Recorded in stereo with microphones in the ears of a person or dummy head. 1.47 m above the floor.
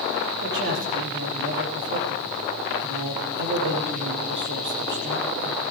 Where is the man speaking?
60° right (ahead or behind), 3.5 m.